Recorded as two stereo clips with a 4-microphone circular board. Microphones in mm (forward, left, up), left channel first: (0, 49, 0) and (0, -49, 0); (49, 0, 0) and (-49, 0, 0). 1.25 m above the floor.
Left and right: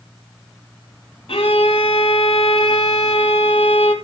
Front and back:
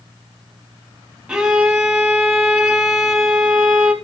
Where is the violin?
95° left, 2.5 m.